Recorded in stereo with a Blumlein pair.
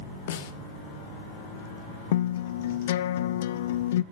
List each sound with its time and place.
0.3 s a snare drum: 55° left, 2 m
2.1 s a guitar: 55° left, 0.8 m